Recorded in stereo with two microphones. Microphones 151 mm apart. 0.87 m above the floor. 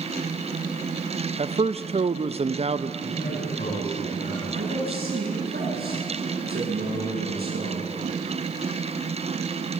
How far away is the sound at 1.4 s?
About 0.7 m.